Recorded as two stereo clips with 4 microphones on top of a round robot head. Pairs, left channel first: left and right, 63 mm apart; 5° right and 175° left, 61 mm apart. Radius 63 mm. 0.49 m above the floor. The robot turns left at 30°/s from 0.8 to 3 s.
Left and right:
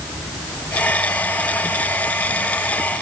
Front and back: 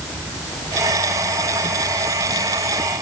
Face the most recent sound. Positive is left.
No sound to turn to.